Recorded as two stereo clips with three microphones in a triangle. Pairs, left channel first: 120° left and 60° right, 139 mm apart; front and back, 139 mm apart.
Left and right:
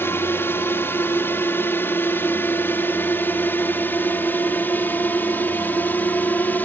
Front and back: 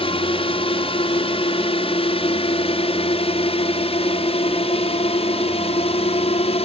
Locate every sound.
0.0 s a drone: 45° left; by 6.7 s 40° left